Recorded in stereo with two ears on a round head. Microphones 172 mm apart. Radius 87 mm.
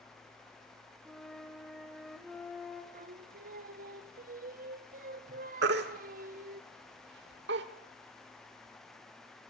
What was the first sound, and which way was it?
A flute, centre (ahead or behind).